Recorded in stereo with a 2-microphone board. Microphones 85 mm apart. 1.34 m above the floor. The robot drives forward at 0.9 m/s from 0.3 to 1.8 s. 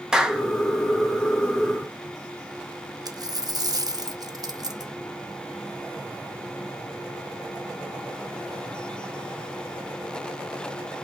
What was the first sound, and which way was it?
A clap, 10° right (ahead or behind).